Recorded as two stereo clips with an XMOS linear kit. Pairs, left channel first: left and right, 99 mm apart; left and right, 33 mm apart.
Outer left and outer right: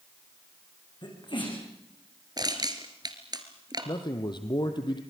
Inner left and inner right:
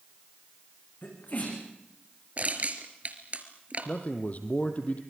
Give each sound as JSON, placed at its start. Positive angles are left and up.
{"t": 1.0, "sound": "a sneeze", "side_deg": 55, "distance_m": 8.0}
{"t": 2.4, "sound": "crushing", "side_deg": -45, "distance_m": 2.0}
{"t": 3.9, "sound": "a man speaking", "side_deg": 50, "distance_m": 3.0}